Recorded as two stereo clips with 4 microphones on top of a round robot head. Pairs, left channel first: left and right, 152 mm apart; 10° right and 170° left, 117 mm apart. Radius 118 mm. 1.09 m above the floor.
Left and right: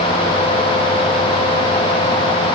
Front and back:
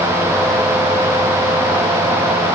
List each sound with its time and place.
Only background noise.